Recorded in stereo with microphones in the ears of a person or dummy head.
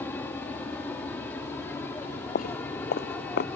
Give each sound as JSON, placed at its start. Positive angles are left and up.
{"t": 0.0, "sound": "an aircraft", "side_deg": 15}
{"t": 2.0, "sound": "footsteps", "side_deg": 50}